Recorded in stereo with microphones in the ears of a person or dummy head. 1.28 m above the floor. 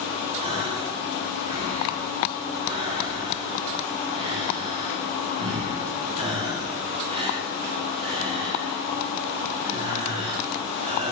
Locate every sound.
0.4 s a gasp: 25° right (ahead or behind), 1.3 m